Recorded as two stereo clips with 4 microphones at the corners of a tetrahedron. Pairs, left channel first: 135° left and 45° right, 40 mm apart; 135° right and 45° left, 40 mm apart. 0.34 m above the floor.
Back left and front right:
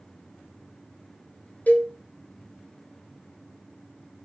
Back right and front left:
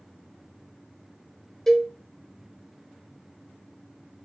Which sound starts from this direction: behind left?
A cowbell, at 1.7 s.